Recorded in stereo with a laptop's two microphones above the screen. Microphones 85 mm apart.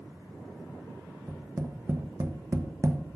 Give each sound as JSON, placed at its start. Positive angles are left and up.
{"t": 1.3, "sound": "tapping", "side_deg": -35, "distance_m": 0.7}